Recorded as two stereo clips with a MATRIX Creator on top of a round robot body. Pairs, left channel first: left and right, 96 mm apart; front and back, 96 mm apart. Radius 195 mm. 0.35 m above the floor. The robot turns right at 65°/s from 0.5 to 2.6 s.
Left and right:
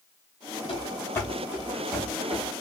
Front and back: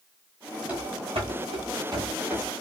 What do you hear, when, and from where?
0.7 s running footsteps: 105° left, 0.7 m; by 2.6 s 75° right, 1.3 m